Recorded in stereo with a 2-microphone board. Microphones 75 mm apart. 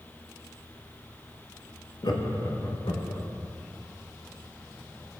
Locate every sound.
2.0 s laughter: 65° left (ahead or behind), 0.9 m